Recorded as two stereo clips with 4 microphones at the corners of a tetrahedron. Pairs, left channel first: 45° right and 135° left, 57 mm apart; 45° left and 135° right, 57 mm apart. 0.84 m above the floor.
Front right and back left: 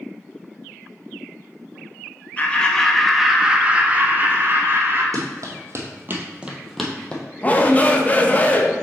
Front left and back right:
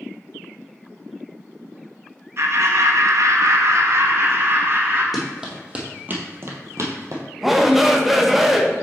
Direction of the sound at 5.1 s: 140° left.